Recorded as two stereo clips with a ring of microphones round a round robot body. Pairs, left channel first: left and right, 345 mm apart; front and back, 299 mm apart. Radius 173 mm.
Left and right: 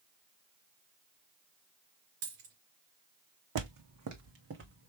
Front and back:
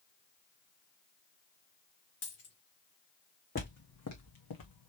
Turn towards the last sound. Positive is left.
turn(degrees=-30)